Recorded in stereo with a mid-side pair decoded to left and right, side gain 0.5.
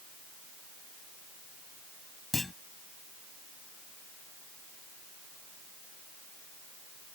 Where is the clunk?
15° left.